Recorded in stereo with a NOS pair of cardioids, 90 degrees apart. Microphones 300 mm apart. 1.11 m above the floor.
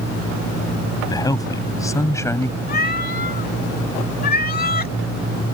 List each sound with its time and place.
1.1 s a man speaking: 10° left
2.7 s a cat meowing: 30° left